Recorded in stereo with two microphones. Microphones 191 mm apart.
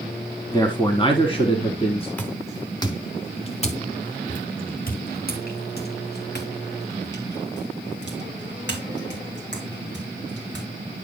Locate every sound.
0.5 s a man speaking: 25° left (ahead or behind), 1.3 m; by 2.1 s 35° left (ahead or behind), 1.9 m
2.2 s footsteps: 10° left (ahead or behind), 1.5 m; by 10.7 s 80° left, 5 m